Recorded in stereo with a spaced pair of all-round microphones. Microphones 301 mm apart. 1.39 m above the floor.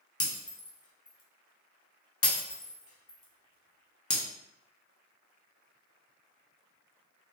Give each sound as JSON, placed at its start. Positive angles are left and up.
{"t": 0.2, "sound": "breaking glass", "side_deg": 50, "distance_m": 0.8}